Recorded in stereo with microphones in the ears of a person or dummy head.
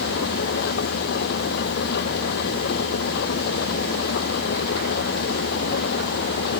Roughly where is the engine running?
Left.